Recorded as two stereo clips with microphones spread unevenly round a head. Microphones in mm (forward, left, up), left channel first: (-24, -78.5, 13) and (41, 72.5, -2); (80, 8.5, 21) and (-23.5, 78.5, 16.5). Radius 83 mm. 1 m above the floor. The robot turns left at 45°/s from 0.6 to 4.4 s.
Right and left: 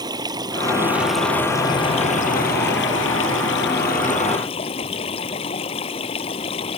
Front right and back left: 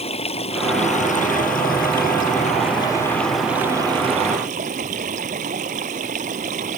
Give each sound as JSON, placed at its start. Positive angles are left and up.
{"t": 0.0, "sound": "running water", "azimuth_deg": 0}